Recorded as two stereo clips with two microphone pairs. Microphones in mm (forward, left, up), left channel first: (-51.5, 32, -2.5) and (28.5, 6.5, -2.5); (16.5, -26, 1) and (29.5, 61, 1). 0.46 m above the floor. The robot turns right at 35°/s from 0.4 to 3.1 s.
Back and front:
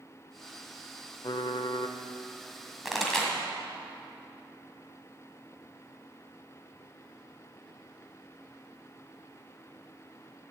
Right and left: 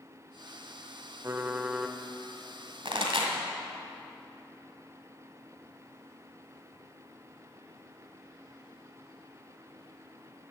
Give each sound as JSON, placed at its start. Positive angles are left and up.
{"t": 1.2, "sound": "typing on a keyboard", "azimuth_deg": 135, "distance_m": 0.5}
{"t": 2.9, "sound": "a pop", "azimuth_deg": 70, "distance_m": 1.6}